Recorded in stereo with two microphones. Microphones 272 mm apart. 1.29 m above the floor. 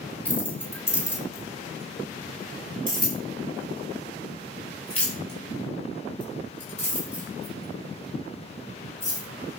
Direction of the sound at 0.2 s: 5° left (ahead or behind).